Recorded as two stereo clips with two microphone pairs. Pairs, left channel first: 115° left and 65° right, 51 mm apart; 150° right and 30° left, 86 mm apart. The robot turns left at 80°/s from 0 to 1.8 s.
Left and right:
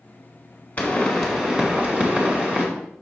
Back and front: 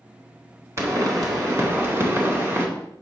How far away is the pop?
About 2.0 m.